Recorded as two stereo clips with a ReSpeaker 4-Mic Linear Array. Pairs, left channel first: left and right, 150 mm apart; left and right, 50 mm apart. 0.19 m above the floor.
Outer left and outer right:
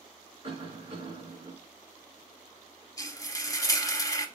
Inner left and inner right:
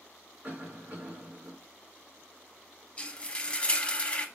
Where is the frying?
25° left (ahead or behind), 0.6 m.